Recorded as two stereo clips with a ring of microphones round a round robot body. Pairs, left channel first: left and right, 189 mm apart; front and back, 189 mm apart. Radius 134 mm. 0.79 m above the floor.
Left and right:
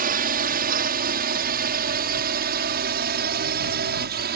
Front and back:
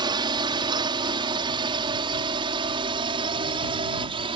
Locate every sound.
0.0 s a drone: 115° right